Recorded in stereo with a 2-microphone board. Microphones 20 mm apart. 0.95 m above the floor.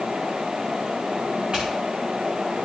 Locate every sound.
1.5 s footsteps: 55° right (ahead or behind), 6 m